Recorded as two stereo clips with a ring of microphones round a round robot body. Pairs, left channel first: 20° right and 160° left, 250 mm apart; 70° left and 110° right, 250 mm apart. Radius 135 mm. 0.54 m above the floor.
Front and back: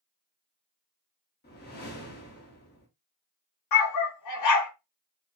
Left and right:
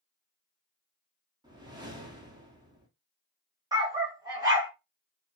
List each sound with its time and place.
1.4 s a whoosh: 45° right, 1.1 m
3.7 s a dog barking: 35° right, 0.9 m